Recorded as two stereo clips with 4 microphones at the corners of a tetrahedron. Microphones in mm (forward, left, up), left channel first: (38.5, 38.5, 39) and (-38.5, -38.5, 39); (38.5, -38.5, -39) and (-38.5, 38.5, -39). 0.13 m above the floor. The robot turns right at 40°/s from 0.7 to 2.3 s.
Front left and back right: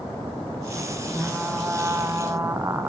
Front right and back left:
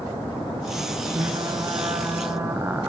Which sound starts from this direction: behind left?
Frying, at 1.1 s.